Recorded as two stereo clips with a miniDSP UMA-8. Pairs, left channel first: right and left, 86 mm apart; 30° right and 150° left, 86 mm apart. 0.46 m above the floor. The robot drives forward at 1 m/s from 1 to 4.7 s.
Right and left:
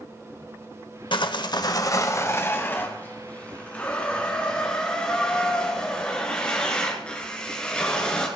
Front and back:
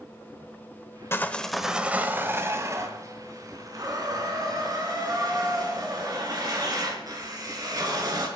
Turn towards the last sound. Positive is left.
turn(degrees=-170)